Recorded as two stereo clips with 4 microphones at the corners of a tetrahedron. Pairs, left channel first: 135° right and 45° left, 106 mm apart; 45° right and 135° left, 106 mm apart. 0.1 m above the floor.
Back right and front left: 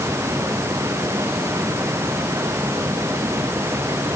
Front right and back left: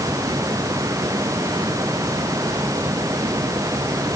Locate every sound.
Only background noise.